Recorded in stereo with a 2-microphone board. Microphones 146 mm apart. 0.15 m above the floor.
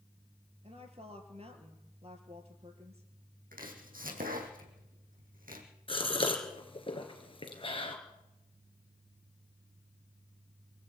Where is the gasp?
35° left (ahead or behind), 3 m.